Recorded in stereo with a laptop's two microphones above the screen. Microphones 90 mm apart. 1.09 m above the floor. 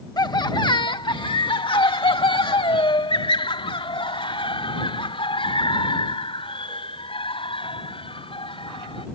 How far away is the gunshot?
I don't hear a gunshot.